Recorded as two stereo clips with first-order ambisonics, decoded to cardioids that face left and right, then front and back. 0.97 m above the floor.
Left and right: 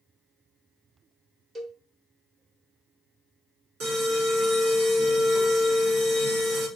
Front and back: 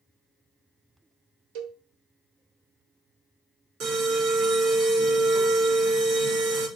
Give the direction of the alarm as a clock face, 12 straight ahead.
5 o'clock.